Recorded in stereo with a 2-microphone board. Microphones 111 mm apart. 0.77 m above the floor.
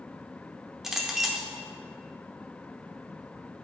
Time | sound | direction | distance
0.8 | a clink | 5° right (ahead or behind) | 1.1 m